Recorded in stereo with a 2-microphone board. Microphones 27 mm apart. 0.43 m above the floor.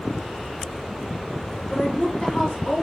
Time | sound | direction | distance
1.7 | a woman speaking | 40° left (ahead or behind) | 1.1 m